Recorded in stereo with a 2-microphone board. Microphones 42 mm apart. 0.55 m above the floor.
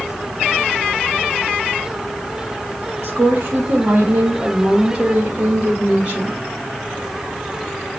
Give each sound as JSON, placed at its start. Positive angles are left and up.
{"t": 3.0, "sound": "a woman speaking", "side_deg": -65, "distance_m": 3.5}